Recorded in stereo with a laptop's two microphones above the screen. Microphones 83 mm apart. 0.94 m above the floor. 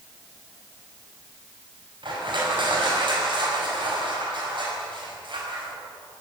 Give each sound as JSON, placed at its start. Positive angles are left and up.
{"t": 2.0, "sound": "crushing", "side_deg": -70, "distance_m": 5.0}